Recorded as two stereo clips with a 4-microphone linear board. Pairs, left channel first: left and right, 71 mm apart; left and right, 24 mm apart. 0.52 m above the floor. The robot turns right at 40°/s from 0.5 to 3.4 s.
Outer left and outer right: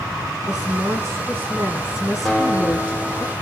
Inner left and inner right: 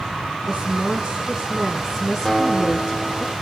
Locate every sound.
0.5 s a woman speaking: 75° right, 4.5 m; by 3.2 s 35° left, 4.5 m
2.2 s a guitar: 175° left, 2.5 m; by 3.3 s 140° right, 2.5 m